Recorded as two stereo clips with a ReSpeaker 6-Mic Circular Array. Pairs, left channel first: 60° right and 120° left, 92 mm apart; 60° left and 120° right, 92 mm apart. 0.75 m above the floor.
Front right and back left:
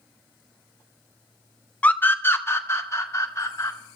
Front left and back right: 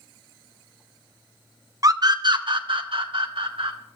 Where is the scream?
125° right, 0.8 m; by 3.8 s 115° right, 2.5 m.